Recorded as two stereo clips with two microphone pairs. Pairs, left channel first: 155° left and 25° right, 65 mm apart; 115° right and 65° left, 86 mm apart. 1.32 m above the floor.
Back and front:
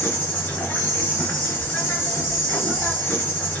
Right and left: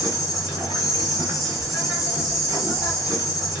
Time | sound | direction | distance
0.0 | an insect | 145° right | 2 m